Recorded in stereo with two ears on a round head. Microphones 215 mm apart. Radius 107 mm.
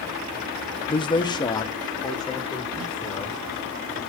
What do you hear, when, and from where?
0.9 s a man speaking: 20° left (ahead or behind), 0.7 m; by 3.4 s 15° left (ahead or behind), 4.5 m